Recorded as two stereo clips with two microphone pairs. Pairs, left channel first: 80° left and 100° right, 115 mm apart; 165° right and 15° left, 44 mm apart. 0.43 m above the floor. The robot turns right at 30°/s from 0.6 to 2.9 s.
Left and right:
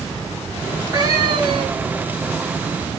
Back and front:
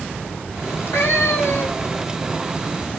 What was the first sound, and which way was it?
A cat meowing, 165° right.